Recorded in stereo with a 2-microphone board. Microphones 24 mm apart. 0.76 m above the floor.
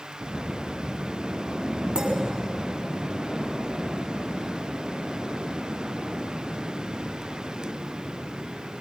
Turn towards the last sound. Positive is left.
turn(degrees=-45)  # may be behind; listen again after turning